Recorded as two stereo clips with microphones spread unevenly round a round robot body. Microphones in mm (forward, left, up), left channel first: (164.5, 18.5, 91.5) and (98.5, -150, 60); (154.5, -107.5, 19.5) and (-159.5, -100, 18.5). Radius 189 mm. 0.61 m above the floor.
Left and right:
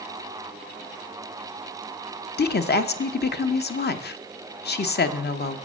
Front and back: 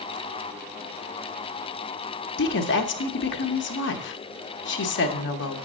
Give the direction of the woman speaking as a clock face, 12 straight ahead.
11 o'clock.